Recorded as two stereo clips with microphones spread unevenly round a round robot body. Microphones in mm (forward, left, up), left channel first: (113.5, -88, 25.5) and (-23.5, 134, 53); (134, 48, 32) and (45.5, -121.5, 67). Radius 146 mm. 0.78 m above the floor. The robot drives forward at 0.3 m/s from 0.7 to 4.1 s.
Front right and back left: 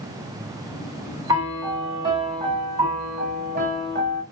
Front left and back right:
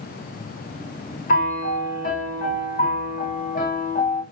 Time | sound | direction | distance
1.3 | a piano | 40° left | 1.6 m